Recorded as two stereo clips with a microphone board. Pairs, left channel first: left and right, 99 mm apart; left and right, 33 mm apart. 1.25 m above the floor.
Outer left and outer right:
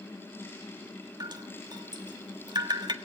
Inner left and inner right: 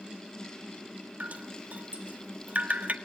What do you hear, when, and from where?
1.2 s dripping: 45° right (ahead or behind), 1.5 m